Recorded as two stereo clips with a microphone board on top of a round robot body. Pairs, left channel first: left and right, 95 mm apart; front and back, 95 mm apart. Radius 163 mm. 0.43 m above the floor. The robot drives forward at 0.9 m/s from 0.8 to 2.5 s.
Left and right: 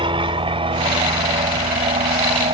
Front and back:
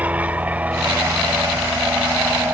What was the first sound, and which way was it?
An aircraft, 105° right.